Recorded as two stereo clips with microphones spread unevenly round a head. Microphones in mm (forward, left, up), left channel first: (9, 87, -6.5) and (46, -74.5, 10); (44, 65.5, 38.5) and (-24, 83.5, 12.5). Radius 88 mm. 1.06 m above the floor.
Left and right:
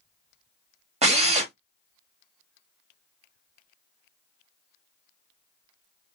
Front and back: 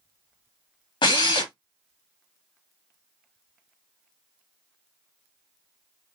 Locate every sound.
1.0 s a drill: 25° right, 1.9 m